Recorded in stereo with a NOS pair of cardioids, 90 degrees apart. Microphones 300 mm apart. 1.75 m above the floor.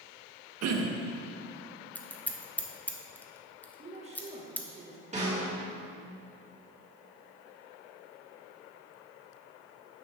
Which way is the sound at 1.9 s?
5° left.